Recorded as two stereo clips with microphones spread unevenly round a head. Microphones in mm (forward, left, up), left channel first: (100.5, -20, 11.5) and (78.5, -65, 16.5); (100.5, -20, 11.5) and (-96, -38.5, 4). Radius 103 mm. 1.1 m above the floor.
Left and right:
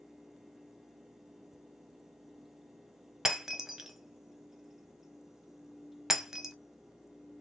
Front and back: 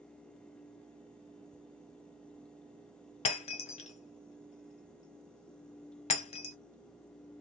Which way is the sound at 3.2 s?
40° right.